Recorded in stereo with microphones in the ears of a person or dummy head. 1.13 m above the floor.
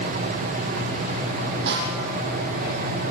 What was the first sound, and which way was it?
A snare drum, 55° right (ahead or behind).